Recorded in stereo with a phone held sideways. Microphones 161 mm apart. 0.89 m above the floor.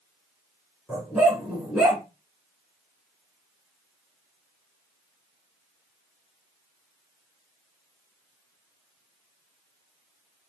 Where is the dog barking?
Centre (ahead or behind), 3 m.